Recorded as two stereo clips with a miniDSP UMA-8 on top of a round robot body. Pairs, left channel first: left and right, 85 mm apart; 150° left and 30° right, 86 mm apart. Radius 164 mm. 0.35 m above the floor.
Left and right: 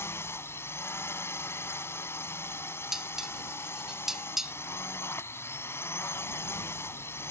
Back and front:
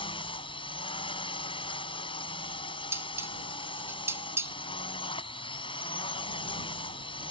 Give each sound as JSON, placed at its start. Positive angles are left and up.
{"t": 0.0, "sound": "a drone", "azimuth_deg": 150}
{"t": 2.9, "sound": "dishes clattering", "azimuth_deg": -10}